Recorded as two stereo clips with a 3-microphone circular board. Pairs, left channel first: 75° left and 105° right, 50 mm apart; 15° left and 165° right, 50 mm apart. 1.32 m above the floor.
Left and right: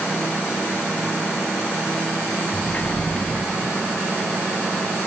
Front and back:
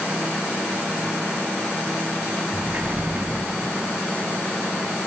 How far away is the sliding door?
About 2.5 m.